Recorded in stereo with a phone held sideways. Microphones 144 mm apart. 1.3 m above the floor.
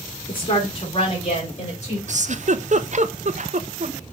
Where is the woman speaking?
35° left (ahead or behind), 4.5 m; by 2.0 s 50° left (ahead or behind), 4.5 m.